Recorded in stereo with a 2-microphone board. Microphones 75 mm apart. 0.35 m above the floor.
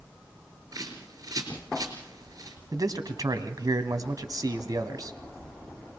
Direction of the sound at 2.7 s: 55° right (ahead or behind).